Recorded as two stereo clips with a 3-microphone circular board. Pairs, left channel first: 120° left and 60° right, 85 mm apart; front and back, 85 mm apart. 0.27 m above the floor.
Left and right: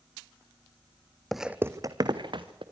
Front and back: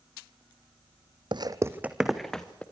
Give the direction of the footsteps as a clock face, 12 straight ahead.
5 o'clock.